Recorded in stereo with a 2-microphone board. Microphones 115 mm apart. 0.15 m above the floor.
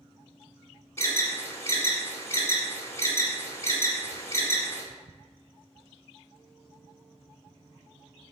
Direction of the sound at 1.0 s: 25° left (ahead or behind).